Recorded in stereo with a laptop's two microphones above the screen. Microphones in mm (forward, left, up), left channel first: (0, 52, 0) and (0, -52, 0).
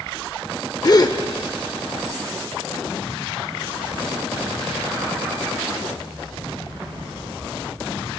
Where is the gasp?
40° left (ahead or behind), 0.8 m.